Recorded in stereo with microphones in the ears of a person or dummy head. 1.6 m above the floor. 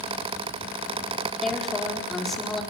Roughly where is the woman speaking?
Centre.